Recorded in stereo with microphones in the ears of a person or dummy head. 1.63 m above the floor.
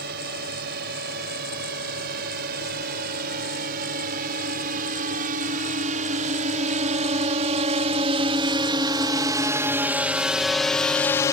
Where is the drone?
55° right (ahead or behind); by 11.3 s 15° left (ahead or behind).